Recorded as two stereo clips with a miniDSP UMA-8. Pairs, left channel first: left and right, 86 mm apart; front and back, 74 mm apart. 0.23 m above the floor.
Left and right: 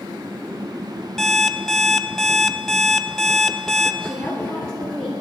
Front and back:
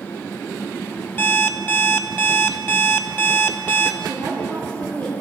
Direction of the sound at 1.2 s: 5° left.